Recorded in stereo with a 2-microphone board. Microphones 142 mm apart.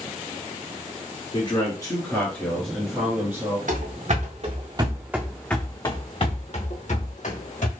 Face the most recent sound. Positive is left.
turn(degrees=65)  # may be behind; listen again after turning